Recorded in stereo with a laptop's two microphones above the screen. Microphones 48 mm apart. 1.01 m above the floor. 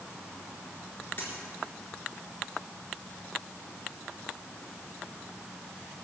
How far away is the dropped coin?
About 4 m.